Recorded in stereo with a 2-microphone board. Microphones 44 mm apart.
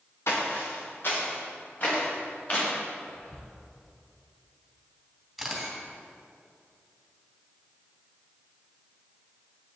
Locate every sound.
0.3 s footsteps: 70° left (ahead or behind), 2.5 m; by 2.7 s 40° left (ahead or behind), 4 m
3.1 s whispering: 25° left (ahead or behind), 1.4 m
5.4 s a camera shutter: centre (ahead or behind), 1.9 m